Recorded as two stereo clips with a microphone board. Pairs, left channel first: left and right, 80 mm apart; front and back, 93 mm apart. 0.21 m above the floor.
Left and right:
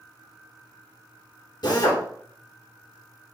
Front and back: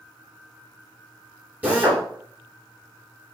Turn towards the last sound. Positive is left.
turn(degrees=110)